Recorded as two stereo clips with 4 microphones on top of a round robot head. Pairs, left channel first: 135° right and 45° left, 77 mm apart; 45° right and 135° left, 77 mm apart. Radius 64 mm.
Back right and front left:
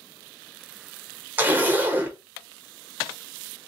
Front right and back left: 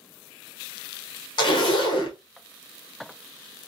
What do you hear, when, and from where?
1.4 s a zipper: 25° right, 0.8 m